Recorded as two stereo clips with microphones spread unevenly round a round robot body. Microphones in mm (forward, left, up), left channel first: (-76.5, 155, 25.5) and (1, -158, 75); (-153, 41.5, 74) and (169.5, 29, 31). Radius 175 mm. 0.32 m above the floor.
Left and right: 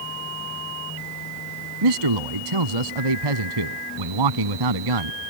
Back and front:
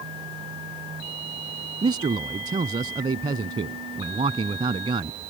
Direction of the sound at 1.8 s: 75° right.